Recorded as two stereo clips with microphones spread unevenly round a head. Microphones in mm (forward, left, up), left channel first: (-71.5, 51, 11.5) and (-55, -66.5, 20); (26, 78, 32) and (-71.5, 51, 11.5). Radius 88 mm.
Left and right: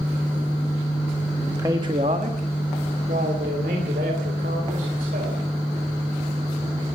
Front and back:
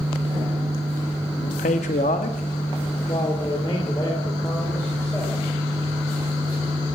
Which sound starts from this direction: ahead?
A man speaking, at 1.4 s.